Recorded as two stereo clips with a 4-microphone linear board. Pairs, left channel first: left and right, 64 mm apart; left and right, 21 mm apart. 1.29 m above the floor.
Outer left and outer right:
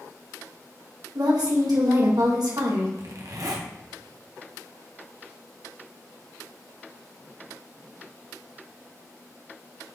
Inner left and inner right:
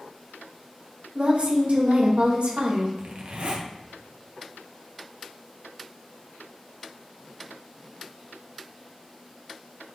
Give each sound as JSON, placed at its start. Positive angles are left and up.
{"t": 1.1, "sound": "a woman speaking", "side_deg": -75, "distance_m": 1.7}
{"t": 3.0, "sound": "a zipper", "side_deg": -60, "distance_m": 1.3}